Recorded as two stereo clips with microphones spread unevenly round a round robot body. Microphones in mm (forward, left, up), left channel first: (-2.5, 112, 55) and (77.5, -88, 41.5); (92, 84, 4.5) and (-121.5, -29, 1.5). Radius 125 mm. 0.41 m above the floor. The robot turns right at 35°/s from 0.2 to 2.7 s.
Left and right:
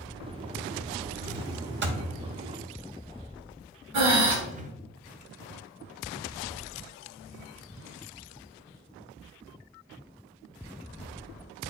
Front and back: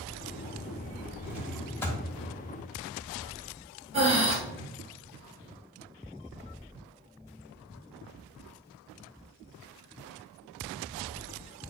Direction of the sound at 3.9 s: 85° right.